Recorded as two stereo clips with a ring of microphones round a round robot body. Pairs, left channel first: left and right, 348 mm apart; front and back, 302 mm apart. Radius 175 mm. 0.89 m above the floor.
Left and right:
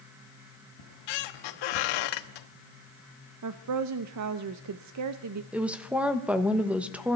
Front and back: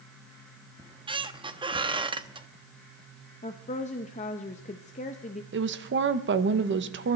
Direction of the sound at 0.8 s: 105° left.